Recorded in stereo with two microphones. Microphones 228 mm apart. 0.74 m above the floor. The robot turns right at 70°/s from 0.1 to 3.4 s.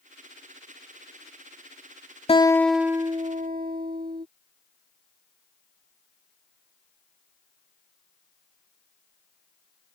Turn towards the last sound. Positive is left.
turn(degrees=-135)